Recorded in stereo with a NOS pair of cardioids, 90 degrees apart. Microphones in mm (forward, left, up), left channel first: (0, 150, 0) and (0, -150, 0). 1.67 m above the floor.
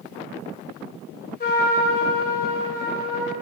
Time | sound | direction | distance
1.4 | a trumpet | 30° left | 0.9 m